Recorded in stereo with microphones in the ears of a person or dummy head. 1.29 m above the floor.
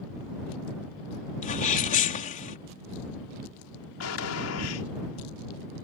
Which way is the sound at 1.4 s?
35° left (ahead or behind).